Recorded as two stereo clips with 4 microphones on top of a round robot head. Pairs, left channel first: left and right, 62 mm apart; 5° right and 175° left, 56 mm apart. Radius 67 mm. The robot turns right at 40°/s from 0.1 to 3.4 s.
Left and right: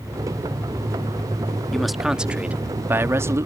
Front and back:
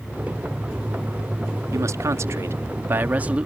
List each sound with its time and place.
1.7 s a man speaking: 175° left; by 3.5 s 120° right